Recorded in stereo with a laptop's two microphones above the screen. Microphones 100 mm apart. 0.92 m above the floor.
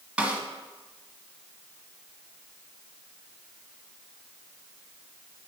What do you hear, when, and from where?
0.2 s a snare drum: 10° right (ahead or behind), 1.2 m